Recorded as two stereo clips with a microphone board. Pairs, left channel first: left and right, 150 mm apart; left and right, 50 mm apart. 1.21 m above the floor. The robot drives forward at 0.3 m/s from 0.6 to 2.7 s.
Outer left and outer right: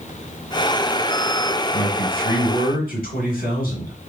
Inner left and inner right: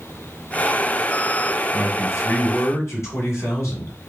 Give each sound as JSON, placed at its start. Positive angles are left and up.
{"t": 1.7, "sound": "a man speaking", "side_deg": 75, "distance_m": 2.0}